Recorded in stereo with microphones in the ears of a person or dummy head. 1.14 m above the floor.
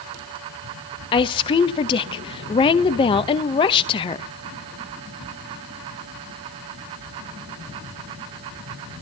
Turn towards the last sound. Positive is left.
turn(degrees=30)  # may be behind; listen again after turning